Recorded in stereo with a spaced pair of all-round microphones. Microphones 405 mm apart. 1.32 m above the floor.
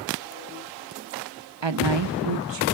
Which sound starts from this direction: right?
A woman speaking, at 1.6 s.